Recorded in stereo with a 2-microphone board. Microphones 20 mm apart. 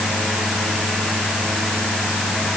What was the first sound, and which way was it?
Only background noise.